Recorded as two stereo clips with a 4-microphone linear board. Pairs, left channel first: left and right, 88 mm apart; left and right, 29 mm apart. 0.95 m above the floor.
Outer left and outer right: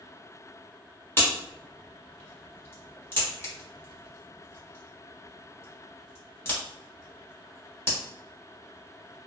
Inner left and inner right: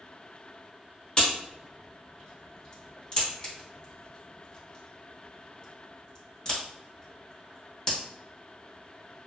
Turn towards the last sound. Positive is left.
turn(degrees=25)  # may be behind; listen again after turning